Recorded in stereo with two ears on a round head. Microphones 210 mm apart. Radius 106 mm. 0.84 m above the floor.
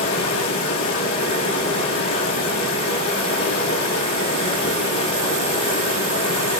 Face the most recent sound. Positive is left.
turn(degrees=25)  # may be behind; listen again after turning